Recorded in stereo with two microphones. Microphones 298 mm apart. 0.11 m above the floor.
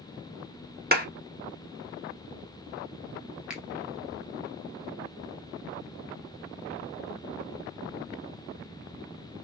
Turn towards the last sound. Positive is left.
turn(degrees=-5)  # may be behind; listen again after turning